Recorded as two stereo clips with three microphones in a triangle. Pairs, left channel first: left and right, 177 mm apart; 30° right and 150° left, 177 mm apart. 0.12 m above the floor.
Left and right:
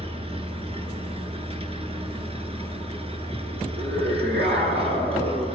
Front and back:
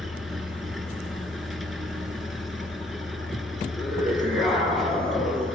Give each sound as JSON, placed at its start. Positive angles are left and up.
{"t": 0.0, "sound": "an engine running", "azimuth_deg": -120, "distance_m": 1.4}
{"t": 3.8, "sound": "a scream", "azimuth_deg": -120, "distance_m": 6.5}